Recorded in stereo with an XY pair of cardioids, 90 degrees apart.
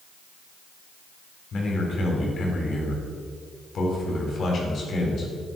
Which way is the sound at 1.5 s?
60° left.